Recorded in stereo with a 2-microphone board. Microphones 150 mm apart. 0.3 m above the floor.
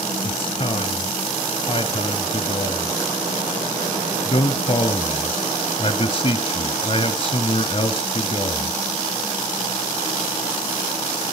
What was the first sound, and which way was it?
A man speaking, 35° left (ahead or behind).